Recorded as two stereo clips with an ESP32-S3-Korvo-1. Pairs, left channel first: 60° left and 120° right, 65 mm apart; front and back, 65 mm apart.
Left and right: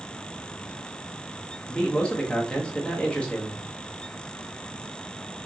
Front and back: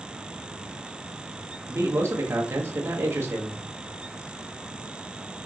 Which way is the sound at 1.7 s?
135° left.